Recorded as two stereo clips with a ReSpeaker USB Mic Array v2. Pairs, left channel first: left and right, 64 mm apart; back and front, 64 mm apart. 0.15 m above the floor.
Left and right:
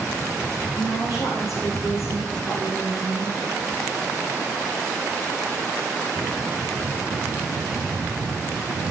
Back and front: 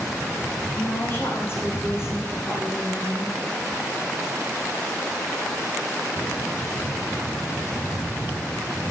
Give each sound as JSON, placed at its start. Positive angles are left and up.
{"t": 0.8, "sound": "a woman speaking", "azimuth_deg": 125, "distance_m": 8.0}